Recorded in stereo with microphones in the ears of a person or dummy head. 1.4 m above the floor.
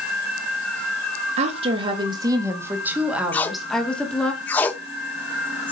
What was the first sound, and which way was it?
A woman speaking, 40° right (ahead or behind).